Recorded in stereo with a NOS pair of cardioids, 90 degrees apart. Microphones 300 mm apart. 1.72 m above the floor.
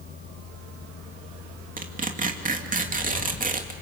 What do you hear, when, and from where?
0.0 s a fan: 65° left, 2.5 m
1.8 s tearing paper: 25° right, 2.5 m